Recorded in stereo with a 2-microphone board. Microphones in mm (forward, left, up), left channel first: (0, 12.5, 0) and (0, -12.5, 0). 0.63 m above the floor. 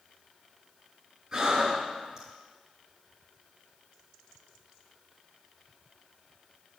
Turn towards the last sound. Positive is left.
turn(degrees=-30)  # may be behind; listen again after turning